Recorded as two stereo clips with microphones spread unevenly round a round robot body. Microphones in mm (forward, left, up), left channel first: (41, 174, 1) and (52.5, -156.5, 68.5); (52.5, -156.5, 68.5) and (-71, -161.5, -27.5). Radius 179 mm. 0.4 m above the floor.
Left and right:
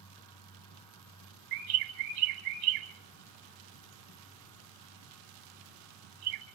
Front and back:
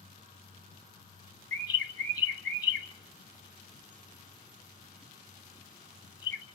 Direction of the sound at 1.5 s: 70° right.